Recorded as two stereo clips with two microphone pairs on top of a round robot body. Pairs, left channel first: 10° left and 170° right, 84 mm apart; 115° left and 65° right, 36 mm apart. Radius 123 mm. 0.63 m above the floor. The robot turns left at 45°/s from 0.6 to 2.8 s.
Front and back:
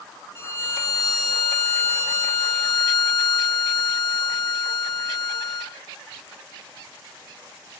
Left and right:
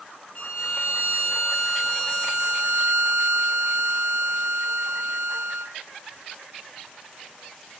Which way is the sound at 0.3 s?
80° left.